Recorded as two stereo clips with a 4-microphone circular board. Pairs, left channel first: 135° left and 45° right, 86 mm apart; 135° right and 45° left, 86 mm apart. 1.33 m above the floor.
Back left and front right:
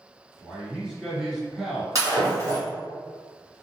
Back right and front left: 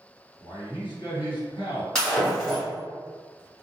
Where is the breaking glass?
60° right, 1.4 m.